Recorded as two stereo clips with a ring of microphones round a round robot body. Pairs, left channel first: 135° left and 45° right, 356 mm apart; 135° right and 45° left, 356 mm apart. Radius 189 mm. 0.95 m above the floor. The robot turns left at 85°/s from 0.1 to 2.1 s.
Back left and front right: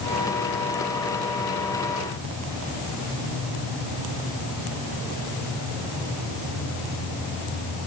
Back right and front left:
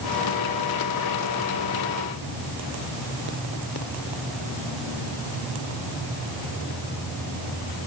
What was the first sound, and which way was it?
Only background noise.